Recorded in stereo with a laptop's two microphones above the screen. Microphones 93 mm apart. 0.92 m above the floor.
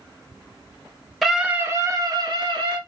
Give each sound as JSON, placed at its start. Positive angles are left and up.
{"t": 1.2, "sound": "a scream", "side_deg": 0, "distance_m": 0.8}